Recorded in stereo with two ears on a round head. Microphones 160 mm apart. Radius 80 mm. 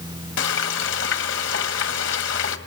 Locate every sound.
0.4 s frying: 75° left (ahead or behind), 1.9 m